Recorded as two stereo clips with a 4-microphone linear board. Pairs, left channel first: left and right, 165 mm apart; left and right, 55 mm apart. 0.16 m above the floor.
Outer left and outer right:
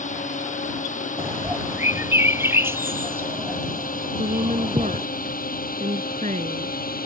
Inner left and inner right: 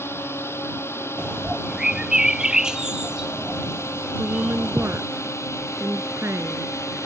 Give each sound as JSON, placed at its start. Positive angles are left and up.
{"t": 0.0, "sound": "a drone", "side_deg": 50}
{"t": 1.2, "sound": "a bird", "side_deg": -15}
{"t": 4.2, "sound": "a woman speaking", "side_deg": -50}